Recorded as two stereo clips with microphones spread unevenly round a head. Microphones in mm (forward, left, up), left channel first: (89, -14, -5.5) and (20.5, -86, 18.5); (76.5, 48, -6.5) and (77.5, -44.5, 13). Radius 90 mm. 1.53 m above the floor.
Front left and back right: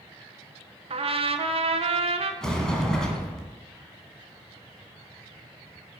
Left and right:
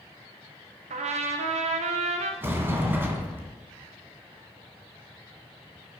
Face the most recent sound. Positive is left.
turn(degrees=-45)